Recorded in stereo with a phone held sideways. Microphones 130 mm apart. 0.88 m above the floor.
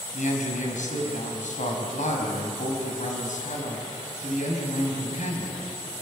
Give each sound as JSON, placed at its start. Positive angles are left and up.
{"t": 0.1, "sound": "a man speaking", "side_deg": 75, "distance_m": 5.0}